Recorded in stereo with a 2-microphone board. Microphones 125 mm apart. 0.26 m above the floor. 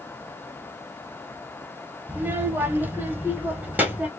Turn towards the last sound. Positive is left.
turn(degrees=-10)  # may be behind; listen again after turning